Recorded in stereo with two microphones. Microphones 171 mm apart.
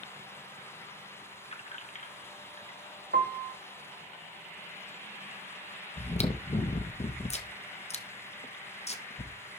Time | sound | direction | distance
1.4 | keys jangling | 35° left (ahead or behind) | 0.9 m
3.1 | a piano | 65° right (ahead or behind) | 0.9 m
6.0 | chewing | 40° left (ahead or behind) | 0.9 m